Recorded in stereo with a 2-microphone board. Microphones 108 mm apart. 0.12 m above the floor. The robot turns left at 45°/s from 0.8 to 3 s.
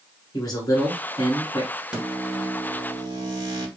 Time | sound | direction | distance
0.3 | a man speaking | 105° left | 1.4 m
1.9 | a microwave | 10° right | 1.8 m